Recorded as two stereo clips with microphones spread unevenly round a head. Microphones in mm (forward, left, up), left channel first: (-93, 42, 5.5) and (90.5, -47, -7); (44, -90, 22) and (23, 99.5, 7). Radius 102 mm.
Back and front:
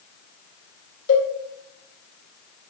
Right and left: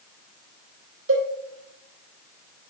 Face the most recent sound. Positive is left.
turn(degrees=115)